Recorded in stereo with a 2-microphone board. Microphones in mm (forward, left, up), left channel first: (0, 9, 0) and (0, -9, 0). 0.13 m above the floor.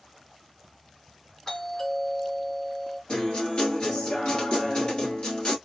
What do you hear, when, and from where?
1.5 s a doorbell: 35° left (ahead or behind), 2.5 m
3.1 s a guitar: 55° left (ahead or behind), 1.5 m